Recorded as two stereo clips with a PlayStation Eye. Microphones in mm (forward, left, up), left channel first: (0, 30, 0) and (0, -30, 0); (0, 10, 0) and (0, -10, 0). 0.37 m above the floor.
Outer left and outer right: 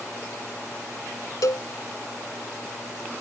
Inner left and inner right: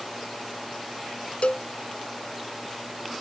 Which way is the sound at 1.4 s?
75° left (ahead or behind).